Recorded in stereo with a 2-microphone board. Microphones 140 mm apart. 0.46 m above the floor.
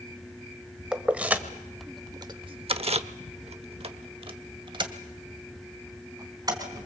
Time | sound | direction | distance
0.9 | keys jangling | 5° right (ahead or behind) | 1.6 m